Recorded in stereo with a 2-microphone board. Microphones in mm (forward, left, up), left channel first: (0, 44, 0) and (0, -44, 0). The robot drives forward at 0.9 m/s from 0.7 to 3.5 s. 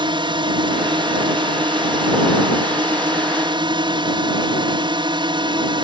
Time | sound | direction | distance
0.0 | a drone | 60° right (ahead or behind) | ?